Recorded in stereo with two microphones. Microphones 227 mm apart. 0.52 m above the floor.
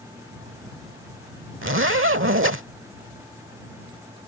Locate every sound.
1.6 s a zipper: 65° right (ahead or behind)